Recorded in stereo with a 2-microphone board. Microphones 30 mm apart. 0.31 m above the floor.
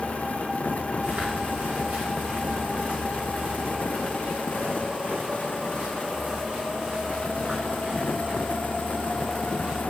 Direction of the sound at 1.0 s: 60° right (ahead or behind).